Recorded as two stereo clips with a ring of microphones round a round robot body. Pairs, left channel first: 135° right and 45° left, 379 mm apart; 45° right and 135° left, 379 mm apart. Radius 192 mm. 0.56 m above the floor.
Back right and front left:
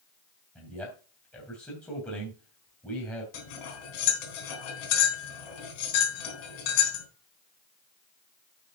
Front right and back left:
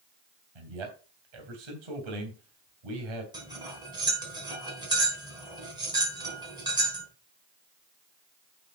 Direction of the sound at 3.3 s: 145° right.